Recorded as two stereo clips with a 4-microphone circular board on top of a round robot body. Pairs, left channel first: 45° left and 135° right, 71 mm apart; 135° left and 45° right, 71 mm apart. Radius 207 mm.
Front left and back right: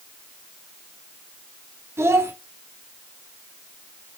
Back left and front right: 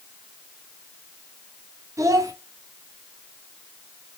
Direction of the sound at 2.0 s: 85° right.